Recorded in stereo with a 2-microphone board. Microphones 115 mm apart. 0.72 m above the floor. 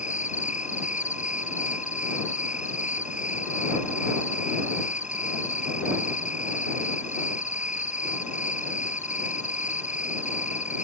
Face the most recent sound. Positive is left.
turn(degrees=80)